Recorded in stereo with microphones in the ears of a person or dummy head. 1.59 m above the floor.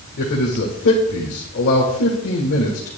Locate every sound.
0.2 s a man speaking: 55° left (ahead or behind), 1.4 m